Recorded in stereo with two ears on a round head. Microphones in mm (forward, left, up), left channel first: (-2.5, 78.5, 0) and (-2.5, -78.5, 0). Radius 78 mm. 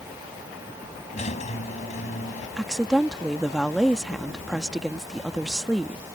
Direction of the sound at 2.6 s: Centre (ahead or behind).